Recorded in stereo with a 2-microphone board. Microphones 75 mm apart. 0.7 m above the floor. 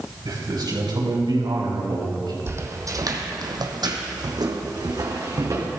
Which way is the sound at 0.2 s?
65° right (ahead or behind).